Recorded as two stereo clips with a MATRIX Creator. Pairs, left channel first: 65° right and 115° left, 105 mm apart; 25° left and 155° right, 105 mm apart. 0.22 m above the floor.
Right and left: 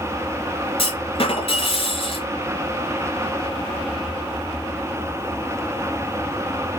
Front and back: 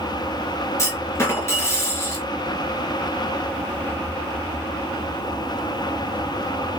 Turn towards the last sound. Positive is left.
turn(degrees=-40)